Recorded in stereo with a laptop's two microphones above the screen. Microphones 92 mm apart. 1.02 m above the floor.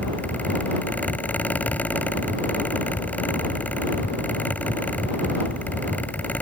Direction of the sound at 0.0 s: 20° left (ahead or behind).